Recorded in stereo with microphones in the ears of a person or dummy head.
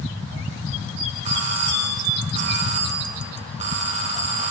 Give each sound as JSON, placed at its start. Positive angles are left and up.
{"t": 1.2, "sound": "a doorbell", "side_deg": -40, "distance_m": 2.5}